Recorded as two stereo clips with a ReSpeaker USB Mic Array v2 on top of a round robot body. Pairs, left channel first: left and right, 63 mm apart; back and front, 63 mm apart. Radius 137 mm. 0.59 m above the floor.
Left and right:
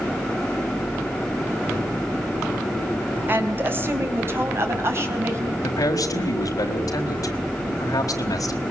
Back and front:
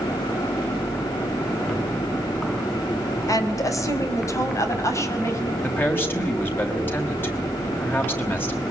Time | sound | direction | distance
3.3 | a woman speaking | 150° right | 4 m
5.6 | a man speaking | 120° left | 4.5 m